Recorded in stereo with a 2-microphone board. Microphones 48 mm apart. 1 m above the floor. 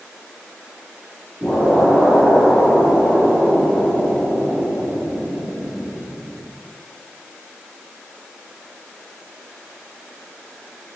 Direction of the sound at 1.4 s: 30° left (ahead or behind).